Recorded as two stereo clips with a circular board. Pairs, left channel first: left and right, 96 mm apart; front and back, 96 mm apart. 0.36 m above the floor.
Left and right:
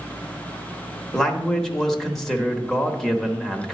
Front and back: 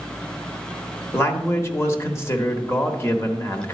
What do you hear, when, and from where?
1.1 s a man speaking: 5° left, 0.9 m